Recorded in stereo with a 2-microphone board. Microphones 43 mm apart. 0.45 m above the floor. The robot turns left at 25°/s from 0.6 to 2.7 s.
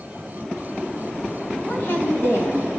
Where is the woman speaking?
40° left (ahead or behind), 2.5 m; by 2.8 s 65° left (ahead or behind), 2.5 m.